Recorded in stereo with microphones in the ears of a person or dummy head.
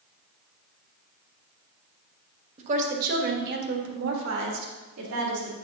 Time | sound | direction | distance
2.6 | a woman speaking | 30° right (ahead or behind) | 1.2 m